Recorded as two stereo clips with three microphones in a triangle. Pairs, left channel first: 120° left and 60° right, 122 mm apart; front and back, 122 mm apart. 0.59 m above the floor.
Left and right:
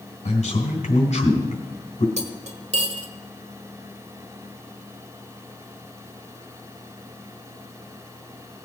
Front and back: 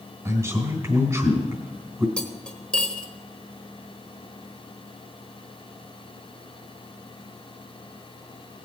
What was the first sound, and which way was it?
A man speaking, 115° left.